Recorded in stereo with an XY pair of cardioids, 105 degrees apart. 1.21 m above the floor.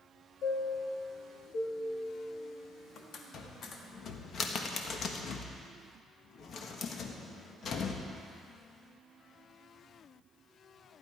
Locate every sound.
0.4 s a chime: 60° left, 1.6 m
3.3 s a cupboard door: 50° left, 1.4 m